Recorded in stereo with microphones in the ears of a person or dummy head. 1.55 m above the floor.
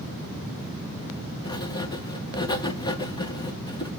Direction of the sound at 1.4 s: 25° left (ahead or behind).